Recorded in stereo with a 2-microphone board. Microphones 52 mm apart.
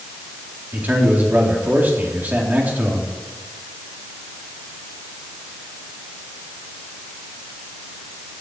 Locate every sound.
0.7 s a man speaking: 35° right (ahead or behind), 4 m